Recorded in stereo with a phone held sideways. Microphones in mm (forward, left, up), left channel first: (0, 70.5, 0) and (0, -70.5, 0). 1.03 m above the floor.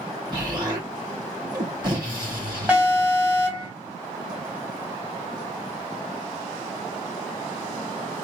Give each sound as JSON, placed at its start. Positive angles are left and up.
{"t": 0.3, "sound": "an explosion", "side_deg": -30, "distance_m": 2.5}
{"t": 2.7, "sound": "an alarm", "side_deg": -10, "distance_m": 2.0}